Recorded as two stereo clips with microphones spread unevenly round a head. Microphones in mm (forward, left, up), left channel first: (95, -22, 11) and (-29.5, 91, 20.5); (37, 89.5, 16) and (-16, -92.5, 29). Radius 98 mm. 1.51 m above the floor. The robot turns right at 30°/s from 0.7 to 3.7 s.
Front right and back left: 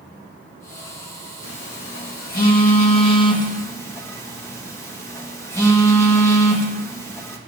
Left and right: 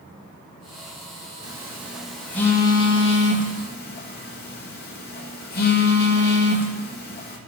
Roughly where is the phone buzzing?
Ahead right.